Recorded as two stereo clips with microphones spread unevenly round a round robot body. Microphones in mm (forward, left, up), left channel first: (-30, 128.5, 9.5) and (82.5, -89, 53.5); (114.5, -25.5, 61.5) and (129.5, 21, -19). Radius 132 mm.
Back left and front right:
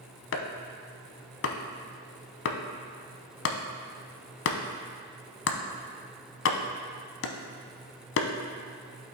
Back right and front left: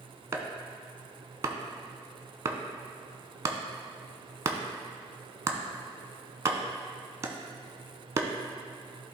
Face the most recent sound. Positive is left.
turn(degrees=80)